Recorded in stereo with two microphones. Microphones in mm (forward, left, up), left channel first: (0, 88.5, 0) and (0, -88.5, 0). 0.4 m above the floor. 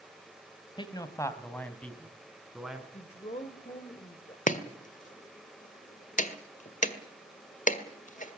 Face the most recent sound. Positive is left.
turn(degrees=45)  # may be behind; listen again after turning